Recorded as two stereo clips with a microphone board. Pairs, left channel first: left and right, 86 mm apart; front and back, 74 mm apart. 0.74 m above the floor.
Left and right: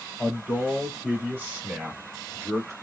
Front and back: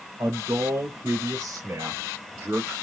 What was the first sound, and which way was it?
A man speaking, 165° right.